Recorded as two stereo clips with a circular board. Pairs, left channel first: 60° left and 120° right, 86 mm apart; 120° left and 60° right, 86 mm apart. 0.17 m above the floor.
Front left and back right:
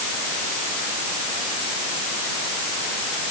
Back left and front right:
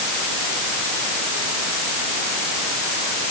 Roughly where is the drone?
No drone in this recording.